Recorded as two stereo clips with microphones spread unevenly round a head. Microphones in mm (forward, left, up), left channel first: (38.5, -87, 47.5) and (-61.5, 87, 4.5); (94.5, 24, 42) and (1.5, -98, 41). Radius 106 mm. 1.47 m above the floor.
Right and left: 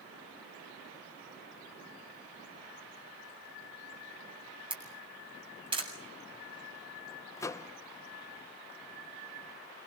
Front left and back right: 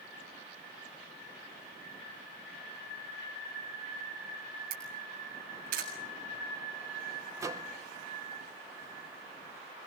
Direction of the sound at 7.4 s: 80° right.